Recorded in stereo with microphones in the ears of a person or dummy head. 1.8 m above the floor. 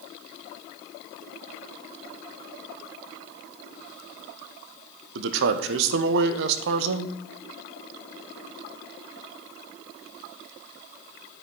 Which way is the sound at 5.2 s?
75° right (ahead or behind).